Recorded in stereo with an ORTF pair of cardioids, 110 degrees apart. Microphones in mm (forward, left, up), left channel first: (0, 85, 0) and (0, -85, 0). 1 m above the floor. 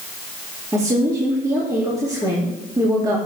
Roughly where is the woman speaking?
Ahead.